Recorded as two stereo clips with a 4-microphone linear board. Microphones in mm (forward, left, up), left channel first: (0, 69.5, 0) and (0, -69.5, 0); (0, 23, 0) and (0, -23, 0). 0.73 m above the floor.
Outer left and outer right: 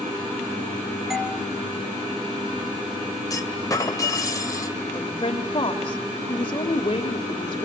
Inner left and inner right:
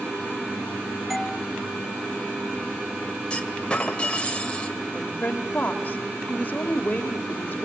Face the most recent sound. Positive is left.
turn(degrees=40)  # may be behind; listen again after turning